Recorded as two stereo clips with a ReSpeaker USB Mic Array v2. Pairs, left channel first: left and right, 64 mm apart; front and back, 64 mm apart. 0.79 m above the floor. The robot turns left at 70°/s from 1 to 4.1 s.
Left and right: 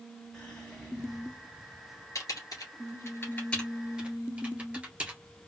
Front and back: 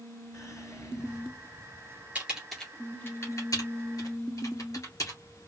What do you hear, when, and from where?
0.3 s whispering: 10° left, 1.5 m; by 1.7 s 40° right, 1.5 m
2.1 s typing on a keyboard: 120° left, 2.0 m; by 5.2 s 15° right, 2.0 m